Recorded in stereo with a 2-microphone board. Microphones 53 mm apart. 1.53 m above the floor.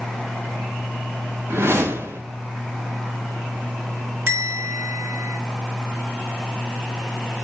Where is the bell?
55° right (ahead or behind), 4.5 m.